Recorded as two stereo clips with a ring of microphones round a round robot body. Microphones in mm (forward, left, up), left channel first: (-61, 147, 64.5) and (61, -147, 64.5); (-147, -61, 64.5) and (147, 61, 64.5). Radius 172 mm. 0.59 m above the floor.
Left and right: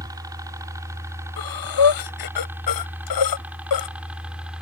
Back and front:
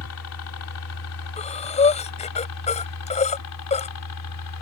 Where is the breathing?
130° left.